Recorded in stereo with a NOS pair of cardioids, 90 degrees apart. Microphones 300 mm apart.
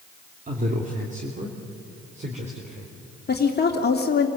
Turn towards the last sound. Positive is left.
turn(degrees=35)